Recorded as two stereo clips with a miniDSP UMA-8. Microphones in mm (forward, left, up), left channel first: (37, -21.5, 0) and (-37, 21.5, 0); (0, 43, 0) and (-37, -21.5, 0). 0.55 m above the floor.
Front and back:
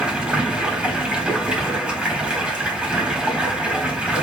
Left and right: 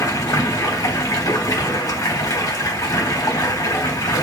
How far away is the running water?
About 1.2 m.